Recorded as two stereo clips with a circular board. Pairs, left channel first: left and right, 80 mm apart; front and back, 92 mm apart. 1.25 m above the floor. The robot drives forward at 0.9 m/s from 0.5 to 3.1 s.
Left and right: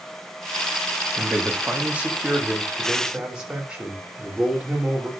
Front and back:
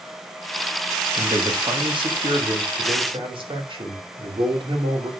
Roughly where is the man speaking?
Behind right.